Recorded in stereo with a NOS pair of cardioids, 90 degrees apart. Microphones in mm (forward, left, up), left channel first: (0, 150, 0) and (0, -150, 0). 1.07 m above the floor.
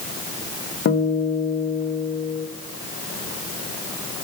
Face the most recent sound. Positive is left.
turn(degrees=50)